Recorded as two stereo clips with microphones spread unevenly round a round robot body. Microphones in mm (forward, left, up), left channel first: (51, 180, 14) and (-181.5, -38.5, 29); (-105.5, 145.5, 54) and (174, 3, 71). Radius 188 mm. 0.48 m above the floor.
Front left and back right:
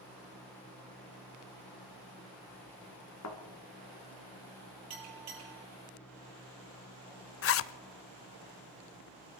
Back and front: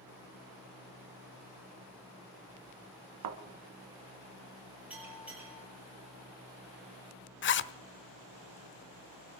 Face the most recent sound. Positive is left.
turn(degrees=95)